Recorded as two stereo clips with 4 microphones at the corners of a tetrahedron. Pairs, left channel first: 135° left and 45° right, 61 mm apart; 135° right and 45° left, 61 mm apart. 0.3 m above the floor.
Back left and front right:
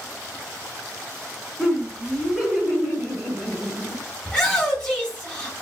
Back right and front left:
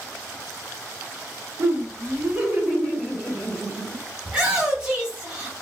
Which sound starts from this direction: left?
A shout, at 4.2 s.